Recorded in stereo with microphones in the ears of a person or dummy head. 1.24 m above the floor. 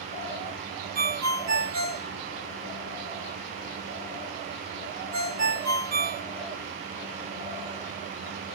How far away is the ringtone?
About 1.6 m.